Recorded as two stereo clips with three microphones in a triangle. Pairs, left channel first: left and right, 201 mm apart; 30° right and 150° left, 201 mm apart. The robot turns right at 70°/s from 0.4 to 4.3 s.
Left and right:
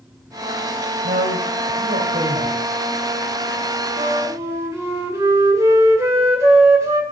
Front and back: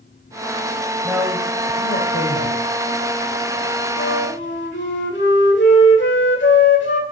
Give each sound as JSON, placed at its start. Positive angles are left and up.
{"t": 1.0, "sound": "a man speaking", "azimuth_deg": -125, "distance_m": 3.0}
{"t": 4.0, "sound": "a flute", "azimuth_deg": -40, "distance_m": 2.0}